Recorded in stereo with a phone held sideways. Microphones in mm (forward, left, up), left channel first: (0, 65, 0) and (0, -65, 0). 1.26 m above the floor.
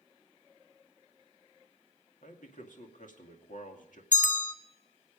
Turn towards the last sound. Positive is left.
turn(degrees=75)  # may be behind; listen again after turning